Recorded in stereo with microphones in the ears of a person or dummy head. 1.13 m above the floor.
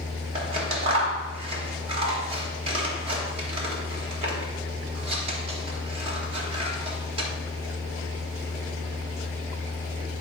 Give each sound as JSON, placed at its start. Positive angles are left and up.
{"t": 0.3, "sound": "scissors", "side_deg": -35, "distance_m": 1.3}